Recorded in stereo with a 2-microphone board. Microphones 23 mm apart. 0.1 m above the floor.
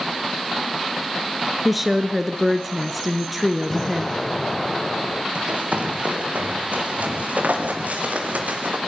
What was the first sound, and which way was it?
A woman speaking, 5° right (ahead or behind).